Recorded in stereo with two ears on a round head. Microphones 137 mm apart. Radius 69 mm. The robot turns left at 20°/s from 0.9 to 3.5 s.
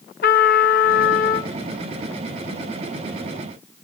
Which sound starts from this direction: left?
A trumpet, at 0.2 s.